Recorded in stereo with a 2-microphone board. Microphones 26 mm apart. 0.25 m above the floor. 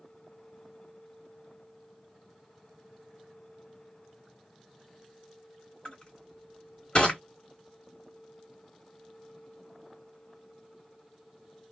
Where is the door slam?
No door slam in this recording.